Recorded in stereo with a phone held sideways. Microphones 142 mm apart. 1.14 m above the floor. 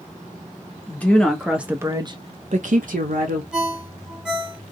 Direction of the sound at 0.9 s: 15° left (ahead or behind).